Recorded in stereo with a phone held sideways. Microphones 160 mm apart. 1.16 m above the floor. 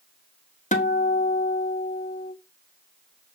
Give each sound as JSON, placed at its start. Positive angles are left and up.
{"t": 0.7, "sound": "a guitar", "side_deg": 50, "distance_m": 1.0}